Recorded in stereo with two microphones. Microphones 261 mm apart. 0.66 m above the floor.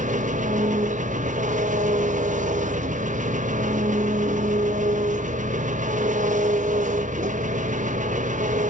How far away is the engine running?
About 0.7 m.